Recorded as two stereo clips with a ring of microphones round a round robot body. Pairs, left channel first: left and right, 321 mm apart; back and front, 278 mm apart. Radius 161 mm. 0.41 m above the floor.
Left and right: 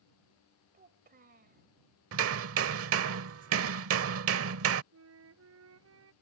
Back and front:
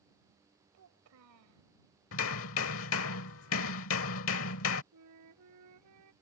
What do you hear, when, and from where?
0.7 s a child speaking: 30° right
2.1 s hammering: 135° right
4.9 s a flute: 40° right